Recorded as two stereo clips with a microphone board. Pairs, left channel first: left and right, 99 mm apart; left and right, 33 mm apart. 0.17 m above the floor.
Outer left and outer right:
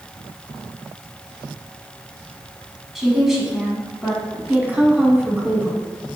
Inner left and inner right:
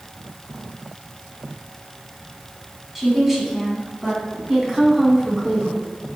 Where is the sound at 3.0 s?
5° right (ahead or behind), 1.3 m.